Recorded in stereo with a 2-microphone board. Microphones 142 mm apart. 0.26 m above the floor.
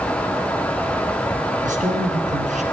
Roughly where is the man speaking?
Right.